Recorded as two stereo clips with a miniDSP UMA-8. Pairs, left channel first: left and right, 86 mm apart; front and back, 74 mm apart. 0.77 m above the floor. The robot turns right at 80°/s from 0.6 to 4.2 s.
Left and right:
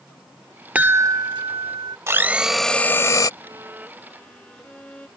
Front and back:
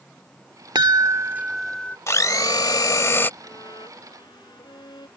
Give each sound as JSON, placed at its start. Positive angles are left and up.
{"t": 0.8, "sound": "a chime", "azimuth_deg": -160}
{"t": 2.1, "sound": "a blender", "azimuth_deg": -40}
{"t": 3.4, "sound": "a violin", "azimuth_deg": -50}